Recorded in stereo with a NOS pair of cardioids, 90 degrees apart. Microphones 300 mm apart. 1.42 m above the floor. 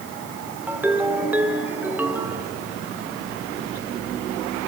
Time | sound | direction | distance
0.7 | a ringtone | 5° right | 2.5 m